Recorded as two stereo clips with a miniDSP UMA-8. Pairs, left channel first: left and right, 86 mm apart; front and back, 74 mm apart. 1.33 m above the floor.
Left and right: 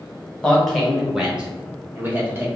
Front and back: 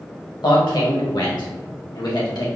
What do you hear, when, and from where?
0.4 s a man speaking: 10° left, 1.3 m; by 2.5 s 30° right, 1.8 m